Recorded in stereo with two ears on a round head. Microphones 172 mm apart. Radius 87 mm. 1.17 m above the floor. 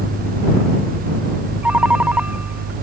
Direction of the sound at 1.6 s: 5° right (ahead or behind).